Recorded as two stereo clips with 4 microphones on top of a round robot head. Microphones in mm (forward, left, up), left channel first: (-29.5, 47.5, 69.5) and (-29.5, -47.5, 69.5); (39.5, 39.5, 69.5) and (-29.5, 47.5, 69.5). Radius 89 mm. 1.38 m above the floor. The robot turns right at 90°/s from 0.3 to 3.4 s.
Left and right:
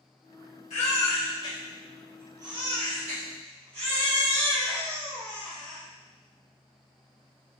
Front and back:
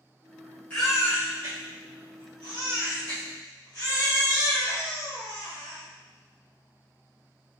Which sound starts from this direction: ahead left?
A baby crying, at 0.7 s.